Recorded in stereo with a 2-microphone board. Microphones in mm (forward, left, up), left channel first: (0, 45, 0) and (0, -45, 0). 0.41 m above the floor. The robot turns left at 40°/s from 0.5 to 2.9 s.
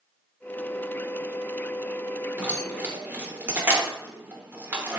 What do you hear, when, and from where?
2.4 s keys jangling: 20° right (ahead or behind), 0.7 m